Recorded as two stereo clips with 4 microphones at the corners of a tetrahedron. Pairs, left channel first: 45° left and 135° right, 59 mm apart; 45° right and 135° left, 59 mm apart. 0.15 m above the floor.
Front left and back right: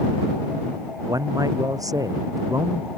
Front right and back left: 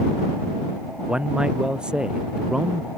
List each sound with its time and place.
1.1 s a man speaking: 150° right